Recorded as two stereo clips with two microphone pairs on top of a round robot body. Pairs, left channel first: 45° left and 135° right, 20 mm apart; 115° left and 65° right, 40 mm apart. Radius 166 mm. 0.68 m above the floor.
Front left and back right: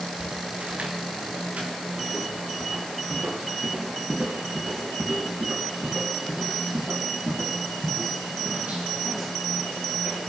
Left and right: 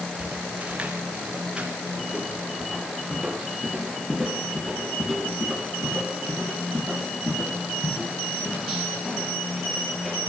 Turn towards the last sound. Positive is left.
turn(degrees=-160)